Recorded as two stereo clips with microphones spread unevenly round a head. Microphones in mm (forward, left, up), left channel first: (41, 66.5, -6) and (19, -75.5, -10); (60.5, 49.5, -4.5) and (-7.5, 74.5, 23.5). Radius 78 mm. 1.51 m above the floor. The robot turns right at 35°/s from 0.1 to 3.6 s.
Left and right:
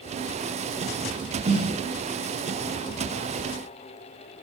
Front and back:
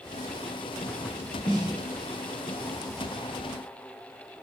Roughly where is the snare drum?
Ahead right.